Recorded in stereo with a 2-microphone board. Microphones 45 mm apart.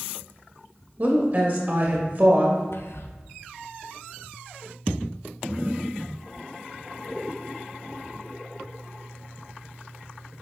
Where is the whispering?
65° left (ahead or behind), 0.7 m.